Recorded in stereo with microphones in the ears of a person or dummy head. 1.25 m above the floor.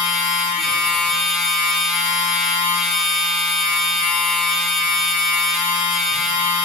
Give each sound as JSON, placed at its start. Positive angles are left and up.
{"t": 0.0, "sound": "a machine running", "side_deg": 0, "distance_m": 0.9}